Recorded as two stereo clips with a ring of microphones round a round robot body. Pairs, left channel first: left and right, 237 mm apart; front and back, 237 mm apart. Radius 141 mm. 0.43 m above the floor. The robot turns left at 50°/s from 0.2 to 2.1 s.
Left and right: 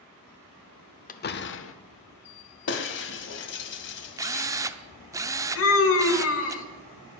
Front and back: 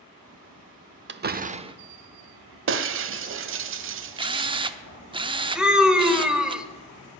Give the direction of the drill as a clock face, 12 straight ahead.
5 o'clock.